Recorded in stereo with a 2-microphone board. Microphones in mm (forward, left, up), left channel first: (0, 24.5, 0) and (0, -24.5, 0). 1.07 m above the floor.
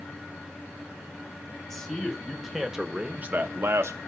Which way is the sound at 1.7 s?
10° left (ahead or behind).